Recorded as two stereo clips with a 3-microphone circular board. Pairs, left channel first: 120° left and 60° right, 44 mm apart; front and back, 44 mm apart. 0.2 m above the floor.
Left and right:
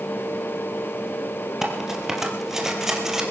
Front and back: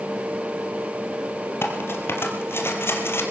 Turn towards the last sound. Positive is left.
turn(degrees=20)